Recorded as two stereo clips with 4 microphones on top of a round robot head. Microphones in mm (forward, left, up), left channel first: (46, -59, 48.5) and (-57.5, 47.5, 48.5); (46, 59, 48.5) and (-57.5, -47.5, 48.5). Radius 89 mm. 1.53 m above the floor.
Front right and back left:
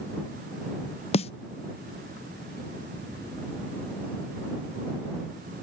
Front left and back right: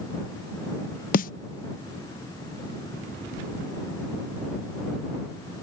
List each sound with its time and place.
1.1 s a snare drum: 10° left